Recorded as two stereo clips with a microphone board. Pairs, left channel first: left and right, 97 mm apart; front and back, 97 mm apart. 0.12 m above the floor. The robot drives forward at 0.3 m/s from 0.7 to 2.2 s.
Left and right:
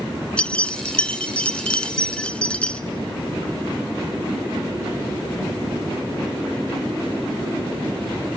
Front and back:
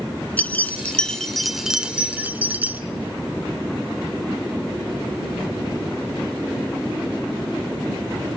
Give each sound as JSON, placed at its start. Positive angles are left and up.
{"t": 0.4, "sound": "keys jangling", "azimuth_deg": 35, "distance_m": 0.8}